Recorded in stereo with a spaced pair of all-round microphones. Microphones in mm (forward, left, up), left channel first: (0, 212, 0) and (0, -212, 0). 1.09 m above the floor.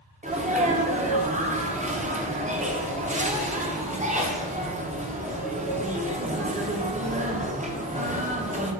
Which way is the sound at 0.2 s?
20° right (ahead or behind).